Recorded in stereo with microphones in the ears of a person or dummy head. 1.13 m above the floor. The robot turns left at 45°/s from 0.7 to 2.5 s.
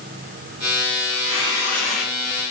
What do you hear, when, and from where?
1.1 s tearing paper: 40° left, 1.2 m; by 2.1 s 5° right, 1.2 m